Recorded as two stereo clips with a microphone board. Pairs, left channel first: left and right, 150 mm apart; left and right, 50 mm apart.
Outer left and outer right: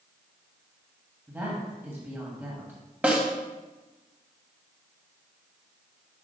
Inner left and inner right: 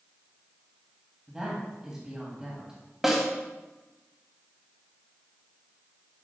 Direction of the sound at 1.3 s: 15° right (ahead or behind).